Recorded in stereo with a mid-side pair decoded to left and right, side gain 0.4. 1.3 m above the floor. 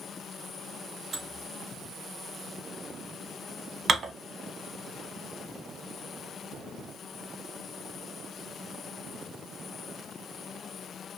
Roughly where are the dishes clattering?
Ahead right.